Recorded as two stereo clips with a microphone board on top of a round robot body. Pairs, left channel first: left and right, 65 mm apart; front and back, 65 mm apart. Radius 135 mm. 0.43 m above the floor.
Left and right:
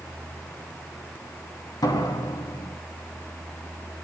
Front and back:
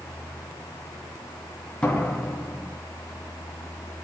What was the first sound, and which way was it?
A door slam, 75° left.